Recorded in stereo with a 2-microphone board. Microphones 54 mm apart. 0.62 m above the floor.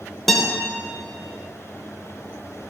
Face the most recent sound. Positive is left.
turn(degrees=5)  # may be behind; listen again after turning